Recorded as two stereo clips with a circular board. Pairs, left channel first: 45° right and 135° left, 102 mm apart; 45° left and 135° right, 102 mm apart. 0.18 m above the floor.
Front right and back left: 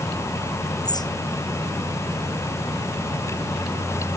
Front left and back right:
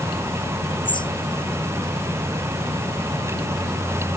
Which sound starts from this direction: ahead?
A bird, at 0.8 s.